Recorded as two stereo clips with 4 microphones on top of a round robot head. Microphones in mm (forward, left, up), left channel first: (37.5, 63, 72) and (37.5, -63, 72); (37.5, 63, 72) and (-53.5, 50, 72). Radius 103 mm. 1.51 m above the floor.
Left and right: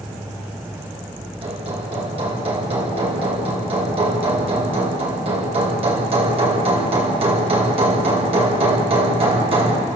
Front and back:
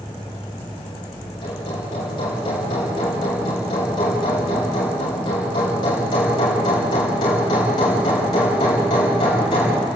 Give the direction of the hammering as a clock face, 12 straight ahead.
2 o'clock.